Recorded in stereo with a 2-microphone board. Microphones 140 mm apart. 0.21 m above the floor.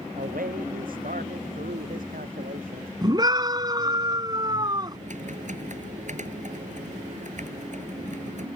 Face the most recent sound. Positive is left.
turn(degrees=-60)  # may be behind; listen again after turning